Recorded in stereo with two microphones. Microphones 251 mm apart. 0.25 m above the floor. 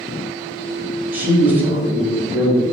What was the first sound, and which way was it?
A man speaking, 5° right (ahead or behind).